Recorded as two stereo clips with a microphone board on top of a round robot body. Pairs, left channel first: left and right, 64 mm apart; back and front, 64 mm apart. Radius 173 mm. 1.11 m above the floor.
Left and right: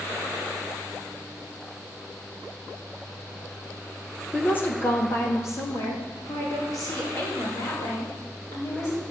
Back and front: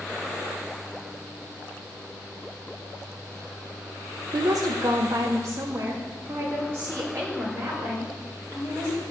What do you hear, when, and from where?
4.3 s a woman speaking: 20° left, 1.0 m; by 9.0 s 55° left, 6 m